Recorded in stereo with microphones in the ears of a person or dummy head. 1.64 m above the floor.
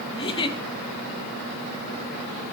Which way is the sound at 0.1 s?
25° left (ahead or behind).